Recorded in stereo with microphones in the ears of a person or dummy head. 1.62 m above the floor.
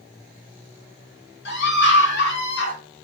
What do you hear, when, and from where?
1.4 s a scream: 75° left (ahead or behind), 4 m